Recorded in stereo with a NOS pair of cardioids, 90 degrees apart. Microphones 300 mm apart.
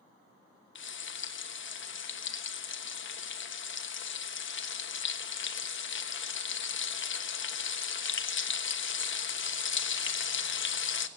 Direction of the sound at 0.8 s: 40° left.